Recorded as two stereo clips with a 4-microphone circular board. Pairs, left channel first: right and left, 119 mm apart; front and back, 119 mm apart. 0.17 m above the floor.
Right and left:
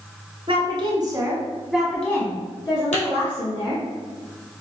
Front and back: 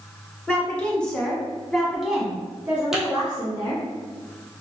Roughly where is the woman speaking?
Left.